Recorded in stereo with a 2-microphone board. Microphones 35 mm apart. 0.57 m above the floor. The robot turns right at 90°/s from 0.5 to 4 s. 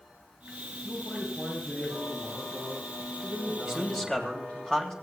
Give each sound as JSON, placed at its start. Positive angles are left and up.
{"t": 0.8, "sound": "a man speaking", "azimuth_deg": 115, "distance_m": 6.5}
{"t": 3.6, "sound": "a man speaking", "azimuth_deg": -20, "distance_m": 3.0}